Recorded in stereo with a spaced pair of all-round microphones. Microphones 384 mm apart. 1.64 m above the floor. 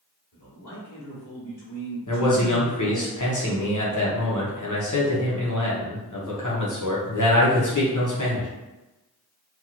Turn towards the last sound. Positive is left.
turn(degrees=50)  # may be behind; listen again after turning